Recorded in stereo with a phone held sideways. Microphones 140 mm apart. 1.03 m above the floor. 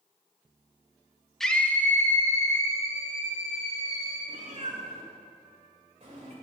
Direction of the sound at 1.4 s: Centre (ahead or behind).